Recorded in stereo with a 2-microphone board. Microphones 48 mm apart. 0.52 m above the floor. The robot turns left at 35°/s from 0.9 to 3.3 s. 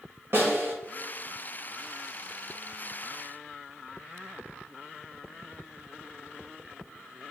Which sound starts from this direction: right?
A snare drum, at 0.3 s.